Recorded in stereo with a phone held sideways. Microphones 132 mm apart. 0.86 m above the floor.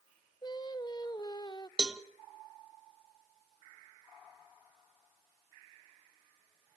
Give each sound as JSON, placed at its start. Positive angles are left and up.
{"t": 0.4, "sound": "singing", "side_deg": 30, "distance_m": 0.8}
{"t": 1.8, "sound": "a cowbell", "side_deg": -5, "distance_m": 0.8}